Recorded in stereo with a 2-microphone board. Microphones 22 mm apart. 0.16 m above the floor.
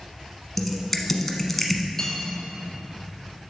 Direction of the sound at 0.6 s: 10° left (ahead or behind).